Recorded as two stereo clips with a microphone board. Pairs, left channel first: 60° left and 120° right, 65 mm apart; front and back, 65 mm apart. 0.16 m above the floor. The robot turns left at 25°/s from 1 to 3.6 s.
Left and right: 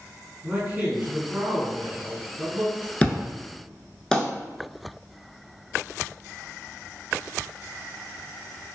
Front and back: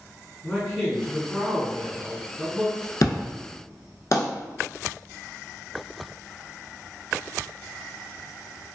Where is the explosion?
5° right, 0.5 m; by 4.2 s 20° right, 0.5 m.